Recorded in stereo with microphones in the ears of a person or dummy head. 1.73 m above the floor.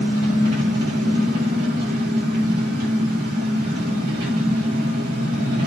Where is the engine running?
65° right (ahead or behind), 7.5 m.